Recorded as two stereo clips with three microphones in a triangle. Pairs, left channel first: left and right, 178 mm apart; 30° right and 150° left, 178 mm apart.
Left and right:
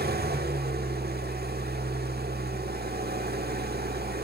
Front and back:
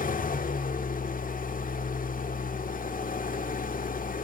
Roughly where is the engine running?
Right.